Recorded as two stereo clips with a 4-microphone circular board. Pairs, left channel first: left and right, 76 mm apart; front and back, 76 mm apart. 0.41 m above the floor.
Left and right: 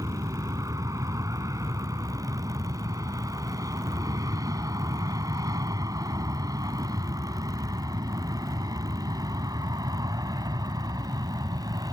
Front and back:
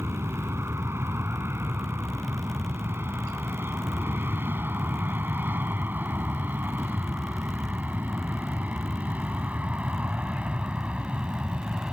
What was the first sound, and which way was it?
An aircraft, 130° right.